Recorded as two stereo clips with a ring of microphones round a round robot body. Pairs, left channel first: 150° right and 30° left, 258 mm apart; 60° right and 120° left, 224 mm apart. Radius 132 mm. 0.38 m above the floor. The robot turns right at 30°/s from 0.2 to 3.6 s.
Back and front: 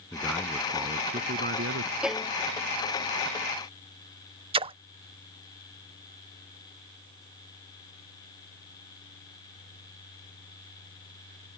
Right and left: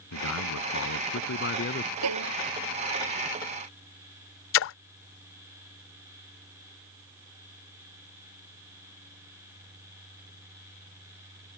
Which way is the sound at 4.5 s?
40° right.